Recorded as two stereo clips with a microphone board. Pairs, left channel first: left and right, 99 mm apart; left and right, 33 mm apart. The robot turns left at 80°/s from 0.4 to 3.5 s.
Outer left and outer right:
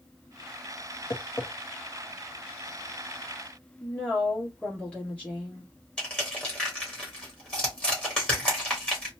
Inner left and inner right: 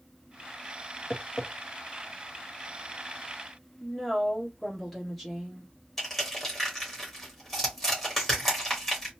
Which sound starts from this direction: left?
Tapping, at 1.1 s.